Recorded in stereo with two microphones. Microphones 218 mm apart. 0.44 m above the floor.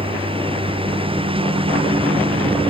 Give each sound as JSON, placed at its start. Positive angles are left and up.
{"t": 0.0, "sound": "a lawn mower", "side_deg": -25}